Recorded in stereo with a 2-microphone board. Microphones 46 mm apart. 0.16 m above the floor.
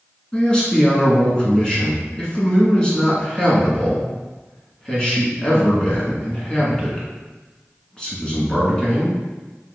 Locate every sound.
0.3 s a man speaking: 20° left (ahead or behind), 1.7 m